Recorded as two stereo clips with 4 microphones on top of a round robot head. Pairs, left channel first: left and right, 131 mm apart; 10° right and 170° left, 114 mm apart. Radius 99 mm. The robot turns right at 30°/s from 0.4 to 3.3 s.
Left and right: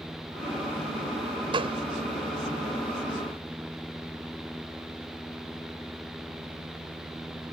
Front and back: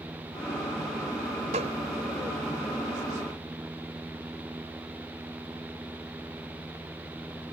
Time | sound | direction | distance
1.5 | a gunshot | 140° right | ?